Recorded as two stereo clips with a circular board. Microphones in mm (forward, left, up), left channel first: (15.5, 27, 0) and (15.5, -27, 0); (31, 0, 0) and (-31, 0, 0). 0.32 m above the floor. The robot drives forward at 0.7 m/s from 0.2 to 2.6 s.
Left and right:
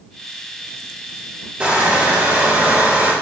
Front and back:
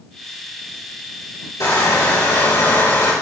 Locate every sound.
1.6 s crushing: 20° right, 4.5 m; by 3.1 s 25° right, 4 m